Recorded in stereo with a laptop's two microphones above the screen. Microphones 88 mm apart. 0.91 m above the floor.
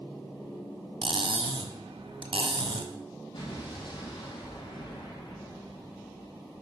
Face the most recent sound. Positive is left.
turn(degrees=80)